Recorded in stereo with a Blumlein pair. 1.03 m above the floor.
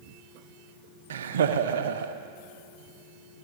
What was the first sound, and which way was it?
Laughter, 65° right.